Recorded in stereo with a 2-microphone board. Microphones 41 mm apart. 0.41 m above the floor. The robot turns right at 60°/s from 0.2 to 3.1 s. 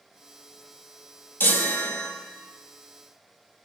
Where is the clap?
I don't hear a clap.